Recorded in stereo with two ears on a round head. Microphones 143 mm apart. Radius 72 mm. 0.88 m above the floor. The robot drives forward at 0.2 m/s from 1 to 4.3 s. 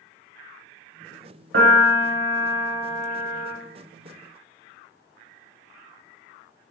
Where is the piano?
80° right, 1.5 m; by 3.5 s 70° right (ahead or behind), 1.5 m.